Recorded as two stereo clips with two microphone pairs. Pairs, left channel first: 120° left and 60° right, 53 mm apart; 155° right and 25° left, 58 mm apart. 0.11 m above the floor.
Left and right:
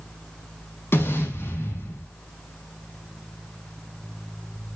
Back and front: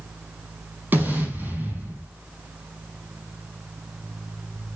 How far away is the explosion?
About 4.5 m.